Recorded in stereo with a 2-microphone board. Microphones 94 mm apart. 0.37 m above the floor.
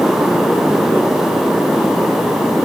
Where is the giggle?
No giggle in this recording.